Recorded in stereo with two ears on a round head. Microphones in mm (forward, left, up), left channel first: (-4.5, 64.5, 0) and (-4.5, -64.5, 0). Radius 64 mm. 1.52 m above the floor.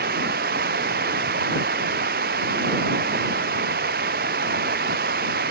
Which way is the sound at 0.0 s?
75° right (ahead or behind).